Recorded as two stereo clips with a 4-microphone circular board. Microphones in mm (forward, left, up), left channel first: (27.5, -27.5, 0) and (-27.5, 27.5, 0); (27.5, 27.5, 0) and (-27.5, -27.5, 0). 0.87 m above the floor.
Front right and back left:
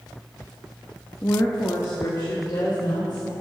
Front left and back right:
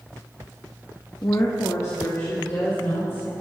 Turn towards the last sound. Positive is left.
turn(degrees=-5)